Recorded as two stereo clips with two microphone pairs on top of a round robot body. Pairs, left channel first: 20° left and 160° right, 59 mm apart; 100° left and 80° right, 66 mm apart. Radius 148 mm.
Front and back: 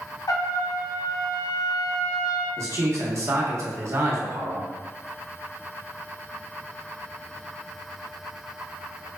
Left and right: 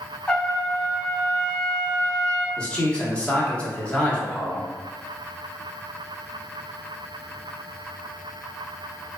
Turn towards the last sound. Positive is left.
turn(degrees=180)